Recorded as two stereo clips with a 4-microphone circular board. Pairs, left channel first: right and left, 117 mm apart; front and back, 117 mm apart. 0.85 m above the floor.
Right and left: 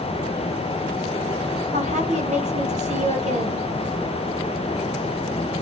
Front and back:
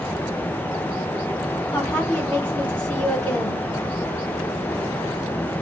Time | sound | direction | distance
1.7 | a woman speaking | 80° left | 1.9 m